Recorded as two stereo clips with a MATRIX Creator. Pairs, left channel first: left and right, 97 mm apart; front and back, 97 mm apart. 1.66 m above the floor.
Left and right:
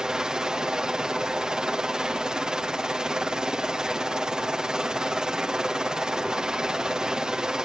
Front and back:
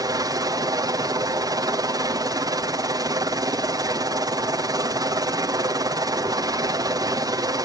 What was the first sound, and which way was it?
A helicopter, 170° right.